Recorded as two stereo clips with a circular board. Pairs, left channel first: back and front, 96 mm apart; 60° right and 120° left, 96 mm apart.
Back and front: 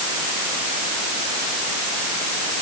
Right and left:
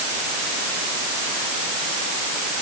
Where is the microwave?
I don't hear a microwave.